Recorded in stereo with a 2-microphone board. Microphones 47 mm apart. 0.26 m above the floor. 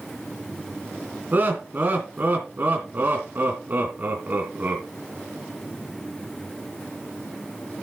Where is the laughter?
40° right (ahead or behind), 2.5 m.